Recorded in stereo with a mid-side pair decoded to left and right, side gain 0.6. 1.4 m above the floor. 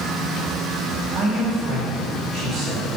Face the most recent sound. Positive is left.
turn(degrees=-45)